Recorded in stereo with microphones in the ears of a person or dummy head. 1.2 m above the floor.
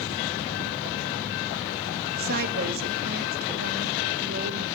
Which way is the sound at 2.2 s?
50° right (ahead or behind).